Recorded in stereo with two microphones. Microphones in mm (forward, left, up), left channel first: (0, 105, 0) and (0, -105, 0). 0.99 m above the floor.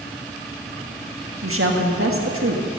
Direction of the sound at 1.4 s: 75° right (ahead or behind).